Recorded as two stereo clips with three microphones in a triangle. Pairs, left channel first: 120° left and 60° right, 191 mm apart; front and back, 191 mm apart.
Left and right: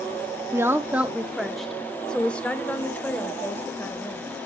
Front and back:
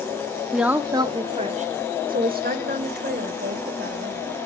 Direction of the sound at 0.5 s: 95° right.